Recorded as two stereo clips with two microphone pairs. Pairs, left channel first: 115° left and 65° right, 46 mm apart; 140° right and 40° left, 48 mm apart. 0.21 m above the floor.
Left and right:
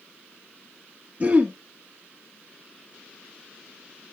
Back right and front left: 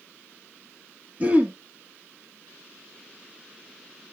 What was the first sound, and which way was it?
Throat clearing, 10° right.